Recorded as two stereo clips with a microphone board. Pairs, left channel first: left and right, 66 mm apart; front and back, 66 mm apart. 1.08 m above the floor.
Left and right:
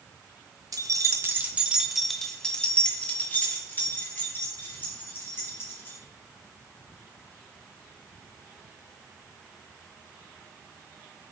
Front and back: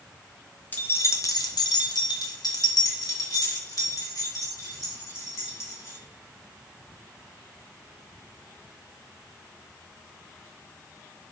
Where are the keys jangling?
65° right, 0.9 m; by 6.0 s 40° left, 4 m.